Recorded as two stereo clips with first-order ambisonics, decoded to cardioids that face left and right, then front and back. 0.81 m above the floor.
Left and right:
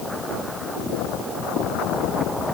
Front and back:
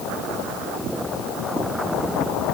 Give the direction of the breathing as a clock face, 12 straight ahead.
I don't hear breathing.